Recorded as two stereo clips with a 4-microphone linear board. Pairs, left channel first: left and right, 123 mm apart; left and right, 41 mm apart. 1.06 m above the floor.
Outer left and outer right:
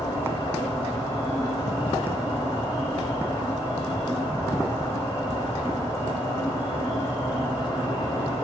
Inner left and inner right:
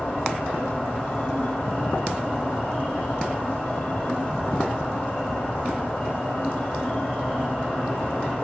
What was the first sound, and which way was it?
An insect, 30° left (ahead or behind).